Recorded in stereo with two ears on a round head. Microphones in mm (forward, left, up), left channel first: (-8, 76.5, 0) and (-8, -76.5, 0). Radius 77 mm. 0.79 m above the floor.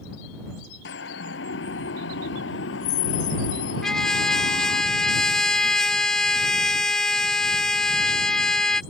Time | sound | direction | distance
0.8 | a siren | 80° left | ?
3.8 | a trumpet | 5° left (ahead or behind) | ?